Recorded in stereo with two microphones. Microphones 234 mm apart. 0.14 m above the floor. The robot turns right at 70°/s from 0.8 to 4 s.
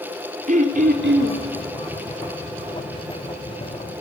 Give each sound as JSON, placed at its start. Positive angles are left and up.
{"t": 0.5, "sound": "throat clearing", "azimuth_deg": -140, "distance_m": 1.4}